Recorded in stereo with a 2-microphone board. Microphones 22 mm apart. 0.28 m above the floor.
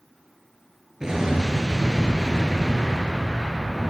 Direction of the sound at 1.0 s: 30° right (ahead or behind).